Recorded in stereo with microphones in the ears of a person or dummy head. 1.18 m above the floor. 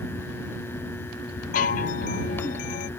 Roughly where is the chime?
Left.